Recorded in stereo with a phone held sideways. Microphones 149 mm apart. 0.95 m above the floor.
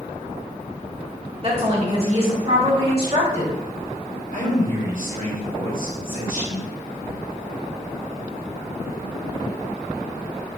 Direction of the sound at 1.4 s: 45° right (ahead or behind).